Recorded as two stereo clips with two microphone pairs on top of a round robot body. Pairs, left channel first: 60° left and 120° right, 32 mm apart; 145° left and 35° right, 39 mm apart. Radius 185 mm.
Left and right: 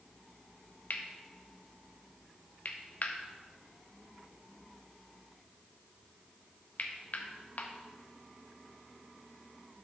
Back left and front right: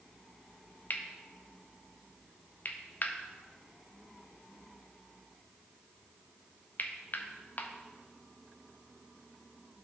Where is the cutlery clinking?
100° left, 0.6 m.